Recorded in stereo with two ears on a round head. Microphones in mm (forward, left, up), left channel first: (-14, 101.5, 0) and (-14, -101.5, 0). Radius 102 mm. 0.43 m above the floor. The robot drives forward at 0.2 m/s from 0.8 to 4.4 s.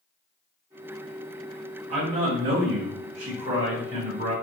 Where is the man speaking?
35° right (ahead or behind), 1.5 m; by 4.3 s 30° right (ahead or behind), 1.7 m.